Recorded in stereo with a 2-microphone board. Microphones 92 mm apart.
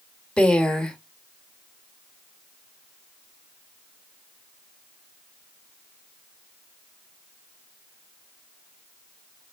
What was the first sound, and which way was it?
A woman speaking, 10° left (ahead or behind).